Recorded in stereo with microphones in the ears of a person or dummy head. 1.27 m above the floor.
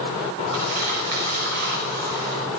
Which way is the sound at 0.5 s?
55° right (ahead or behind).